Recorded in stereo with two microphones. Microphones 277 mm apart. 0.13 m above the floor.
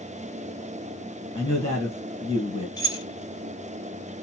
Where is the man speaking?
15° left (ahead or behind), 1.5 m.